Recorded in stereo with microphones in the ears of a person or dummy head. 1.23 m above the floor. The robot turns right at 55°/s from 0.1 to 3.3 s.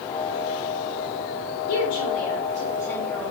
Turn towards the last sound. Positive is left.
turn(degrees=-175)